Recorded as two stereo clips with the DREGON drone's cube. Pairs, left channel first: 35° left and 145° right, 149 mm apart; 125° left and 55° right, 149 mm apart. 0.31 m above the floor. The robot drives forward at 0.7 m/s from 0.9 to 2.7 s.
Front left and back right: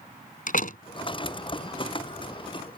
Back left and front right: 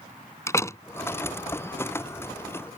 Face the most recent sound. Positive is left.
turn(degrees=85)